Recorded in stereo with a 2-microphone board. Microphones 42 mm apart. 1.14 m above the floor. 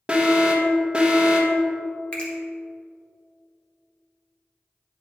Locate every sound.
0.1 s an alarm: 25° right (ahead or behind), 1.1 m
2.1 s a finger snap: 30° left (ahead or behind), 1.5 m